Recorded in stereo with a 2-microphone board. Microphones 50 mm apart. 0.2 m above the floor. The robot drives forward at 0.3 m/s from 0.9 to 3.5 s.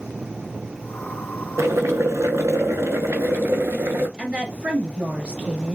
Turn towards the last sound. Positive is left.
turn(degrees=-25)  # may be behind; listen again after turning